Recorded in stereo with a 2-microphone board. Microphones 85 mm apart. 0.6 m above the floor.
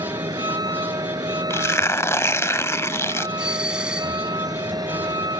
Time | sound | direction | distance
0.0 | a vehicle | 50° right (ahead or behind) | ?
1.5 | tearing paper | 30° left (ahead or behind) | ?
3.4 | a doorbell | 10° right (ahead or behind) | ?